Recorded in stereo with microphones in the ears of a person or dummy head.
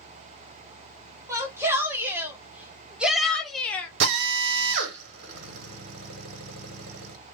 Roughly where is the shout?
Centre.